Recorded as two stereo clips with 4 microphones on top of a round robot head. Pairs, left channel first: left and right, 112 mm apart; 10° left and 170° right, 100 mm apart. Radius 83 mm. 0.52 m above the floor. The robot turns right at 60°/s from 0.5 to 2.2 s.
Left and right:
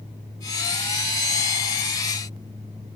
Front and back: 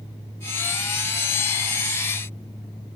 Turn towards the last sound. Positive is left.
No sound to turn to.